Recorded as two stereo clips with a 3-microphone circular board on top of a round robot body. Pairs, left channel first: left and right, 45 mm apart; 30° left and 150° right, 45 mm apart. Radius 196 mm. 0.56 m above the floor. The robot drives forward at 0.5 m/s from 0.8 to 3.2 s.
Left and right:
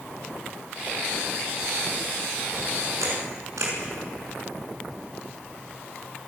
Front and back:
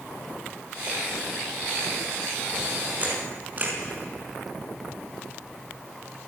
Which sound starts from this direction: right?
A camera shutter, at 3.0 s.